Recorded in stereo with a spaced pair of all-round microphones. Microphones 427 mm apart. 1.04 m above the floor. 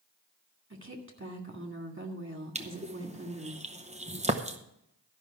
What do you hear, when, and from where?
0.7 s a woman speaking: 30° right (ahead or behind), 2 m
2.5 s crushing: 15° right (ahead or behind), 0.8 m